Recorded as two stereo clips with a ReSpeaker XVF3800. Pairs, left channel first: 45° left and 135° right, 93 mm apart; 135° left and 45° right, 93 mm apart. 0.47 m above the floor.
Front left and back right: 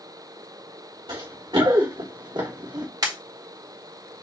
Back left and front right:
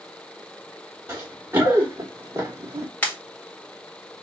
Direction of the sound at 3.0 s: 155° right.